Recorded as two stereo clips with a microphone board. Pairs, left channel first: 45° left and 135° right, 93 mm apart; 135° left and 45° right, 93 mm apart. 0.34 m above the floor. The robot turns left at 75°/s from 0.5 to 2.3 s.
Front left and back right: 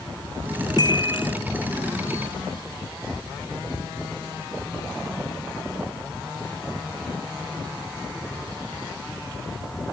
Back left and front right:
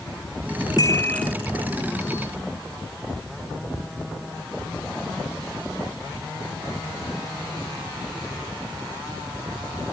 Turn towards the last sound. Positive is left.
turn(degrees=-25)